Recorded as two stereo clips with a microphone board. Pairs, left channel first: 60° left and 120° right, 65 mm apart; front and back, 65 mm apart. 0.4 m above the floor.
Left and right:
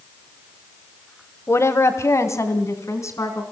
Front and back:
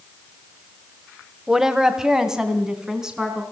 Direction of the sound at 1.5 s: 100° left.